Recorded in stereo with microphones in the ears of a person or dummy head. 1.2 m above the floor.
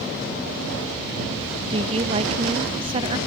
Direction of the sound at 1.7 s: 35° right (ahead or behind).